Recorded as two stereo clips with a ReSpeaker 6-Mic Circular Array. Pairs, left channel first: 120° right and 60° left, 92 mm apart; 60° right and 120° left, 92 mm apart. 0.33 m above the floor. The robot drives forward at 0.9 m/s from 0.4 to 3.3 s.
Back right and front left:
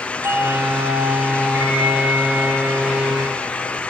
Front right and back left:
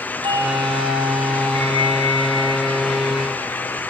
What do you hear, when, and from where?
0.2 s a doorbell: 120° left, 7.5 m; by 3.7 s 135° left, 9 m